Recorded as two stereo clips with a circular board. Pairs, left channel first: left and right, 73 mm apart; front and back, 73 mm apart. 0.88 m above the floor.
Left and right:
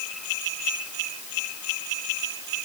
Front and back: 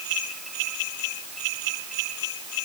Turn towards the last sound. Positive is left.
No sound to turn to.